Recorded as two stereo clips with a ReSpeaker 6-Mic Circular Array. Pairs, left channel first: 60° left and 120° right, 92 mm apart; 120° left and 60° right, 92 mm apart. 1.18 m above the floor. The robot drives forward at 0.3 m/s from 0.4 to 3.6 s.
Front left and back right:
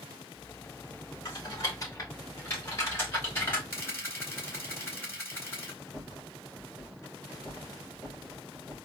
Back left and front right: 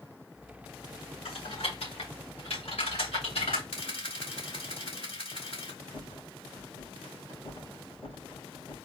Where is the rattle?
120° left, 2.5 m.